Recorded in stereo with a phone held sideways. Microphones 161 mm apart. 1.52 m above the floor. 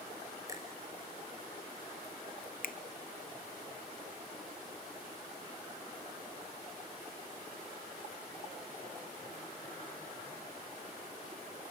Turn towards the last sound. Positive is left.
turn(degrees=65)  # may be behind; listen again after turning